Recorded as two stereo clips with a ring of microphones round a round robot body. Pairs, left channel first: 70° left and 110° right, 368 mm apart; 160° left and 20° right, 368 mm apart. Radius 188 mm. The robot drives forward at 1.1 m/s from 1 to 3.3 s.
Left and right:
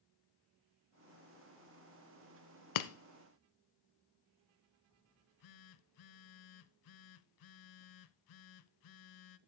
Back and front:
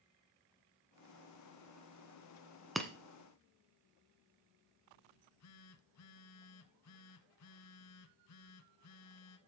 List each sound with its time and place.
2.8 s breaking glass: 65° left, 1.0 m; by 2.9 s 75° left, 1.0 m
5.1 s a phone buzzing: 105° left, 0.6 m